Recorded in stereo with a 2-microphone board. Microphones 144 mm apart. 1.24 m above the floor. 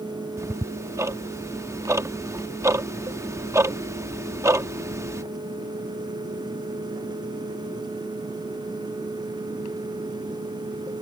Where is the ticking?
20° right (ahead or behind).